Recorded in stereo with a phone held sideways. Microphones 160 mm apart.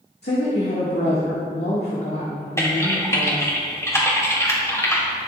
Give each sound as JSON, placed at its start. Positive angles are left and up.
{"t": 0.2, "sound": "a woman speaking", "side_deg": 85, "distance_m": 1.8}
{"t": 2.6, "sound": "typing on a keyboard", "side_deg": 15, "distance_m": 2.0}